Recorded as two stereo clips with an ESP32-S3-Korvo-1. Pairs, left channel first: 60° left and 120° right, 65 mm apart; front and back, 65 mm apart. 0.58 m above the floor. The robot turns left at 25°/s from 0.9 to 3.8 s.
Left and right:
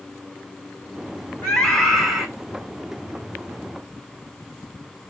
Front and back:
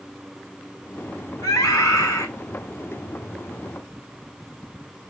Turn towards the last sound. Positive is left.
turn(degrees=-65)